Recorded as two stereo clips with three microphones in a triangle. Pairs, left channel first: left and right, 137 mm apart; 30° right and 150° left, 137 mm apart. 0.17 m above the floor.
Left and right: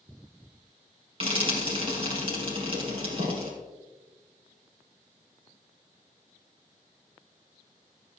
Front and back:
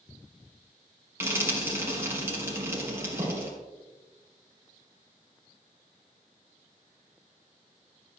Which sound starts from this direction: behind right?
Frying, at 1.2 s.